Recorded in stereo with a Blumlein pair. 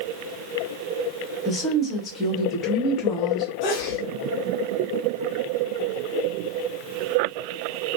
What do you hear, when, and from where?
1.4 s a woman speaking: 20° left, 1.0 m
3.6 s a sneeze: 45° left, 0.9 m